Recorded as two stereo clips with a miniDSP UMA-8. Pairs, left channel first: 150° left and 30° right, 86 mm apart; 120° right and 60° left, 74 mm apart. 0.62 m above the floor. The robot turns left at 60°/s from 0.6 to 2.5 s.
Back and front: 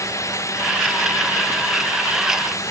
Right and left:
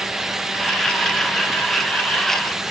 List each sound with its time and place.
Only background noise.